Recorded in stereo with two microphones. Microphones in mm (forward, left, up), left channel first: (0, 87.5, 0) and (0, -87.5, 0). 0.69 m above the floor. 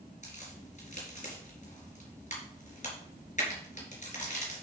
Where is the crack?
45° left (ahead or behind), 3.5 m.